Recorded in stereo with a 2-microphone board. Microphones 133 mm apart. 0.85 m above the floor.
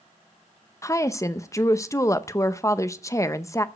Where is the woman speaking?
25° left (ahead or behind), 0.6 m.